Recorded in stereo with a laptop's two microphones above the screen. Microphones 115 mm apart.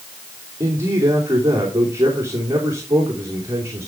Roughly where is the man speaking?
Right.